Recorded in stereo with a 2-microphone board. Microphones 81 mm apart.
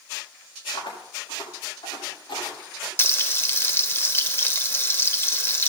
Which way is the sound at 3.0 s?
30° left (ahead or behind).